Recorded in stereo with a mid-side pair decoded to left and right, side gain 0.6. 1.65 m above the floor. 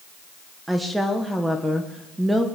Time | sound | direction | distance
0.7 | a woman speaking | 5° right | 1.6 m